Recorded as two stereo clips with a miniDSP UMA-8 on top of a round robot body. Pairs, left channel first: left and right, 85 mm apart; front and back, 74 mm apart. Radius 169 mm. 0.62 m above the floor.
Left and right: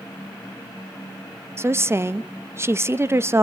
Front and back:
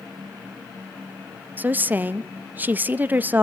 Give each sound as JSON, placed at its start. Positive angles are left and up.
{"t": 1.6, "sound": "a woman speaking", "azimuth_deg": -130, "distance_m": 0.9}